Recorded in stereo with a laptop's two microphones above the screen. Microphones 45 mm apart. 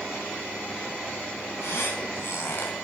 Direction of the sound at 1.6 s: 60° left (ahead or behind).